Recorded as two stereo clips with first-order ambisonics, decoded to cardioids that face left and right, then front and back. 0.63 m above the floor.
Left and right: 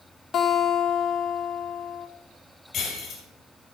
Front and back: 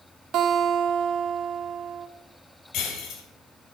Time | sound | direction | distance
0.3 | a guitar | 145° left | 1.3 m
2.7 | breaking glass | 30° left | 3 m